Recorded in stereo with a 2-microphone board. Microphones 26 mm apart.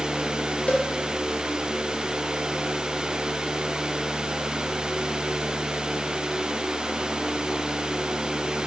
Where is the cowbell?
75° left (ahead or behind), 1.0 m.